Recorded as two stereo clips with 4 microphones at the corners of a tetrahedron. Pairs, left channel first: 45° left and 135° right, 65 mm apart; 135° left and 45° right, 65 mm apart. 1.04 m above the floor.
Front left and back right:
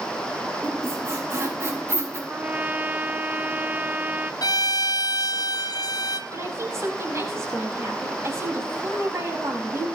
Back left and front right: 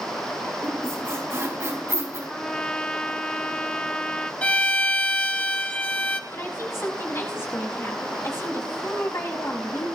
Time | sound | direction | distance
0.6 | a squeak | 90° right | 5.5 m
2.3 | a trumpet | 170° right | 0.7 m
4.4 | a violin | 60° left | 1.0 m
6.3 | a woman speaking | straight behind | 6.5 m